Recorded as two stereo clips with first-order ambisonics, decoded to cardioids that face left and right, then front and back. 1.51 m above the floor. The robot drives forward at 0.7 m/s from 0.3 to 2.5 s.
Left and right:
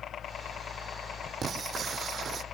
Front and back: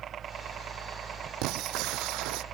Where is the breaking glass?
150° right; by 2.4 s 155° right.